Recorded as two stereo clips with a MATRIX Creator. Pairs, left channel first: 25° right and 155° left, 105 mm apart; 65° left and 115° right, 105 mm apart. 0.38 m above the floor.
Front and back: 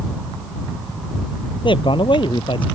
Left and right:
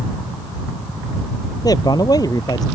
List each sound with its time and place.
1.6 s a man speaking: 15° left